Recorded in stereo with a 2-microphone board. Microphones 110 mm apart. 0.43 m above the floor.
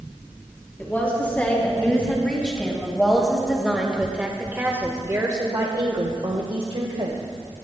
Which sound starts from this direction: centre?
A woman speaking, at 0.8 s.